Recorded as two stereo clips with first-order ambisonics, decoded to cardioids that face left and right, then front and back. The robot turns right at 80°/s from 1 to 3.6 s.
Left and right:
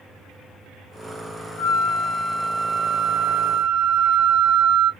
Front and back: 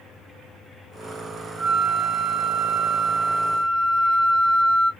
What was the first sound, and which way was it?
A flute, 100° left.